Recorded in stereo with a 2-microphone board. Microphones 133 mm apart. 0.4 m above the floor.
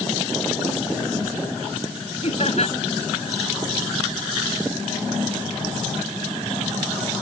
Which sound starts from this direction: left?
Laughter, at 2.2 s.